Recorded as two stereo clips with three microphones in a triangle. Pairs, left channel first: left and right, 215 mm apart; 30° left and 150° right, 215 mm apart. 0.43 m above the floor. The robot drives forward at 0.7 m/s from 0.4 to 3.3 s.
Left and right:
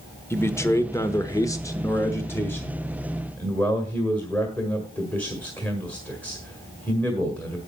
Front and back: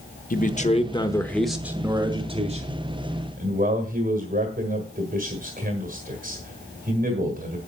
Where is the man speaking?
20° left, 1.1 m; by 7.6 s 170° left, 1.6 m.